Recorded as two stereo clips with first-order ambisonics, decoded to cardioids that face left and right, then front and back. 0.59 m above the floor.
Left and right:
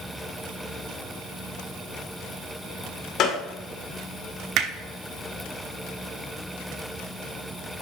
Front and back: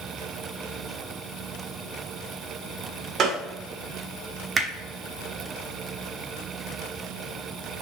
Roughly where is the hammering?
Right.